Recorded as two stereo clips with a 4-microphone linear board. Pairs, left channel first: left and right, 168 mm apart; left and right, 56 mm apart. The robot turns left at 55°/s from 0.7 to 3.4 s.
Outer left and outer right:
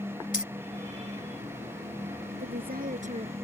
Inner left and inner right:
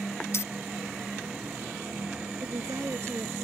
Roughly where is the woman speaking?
Right.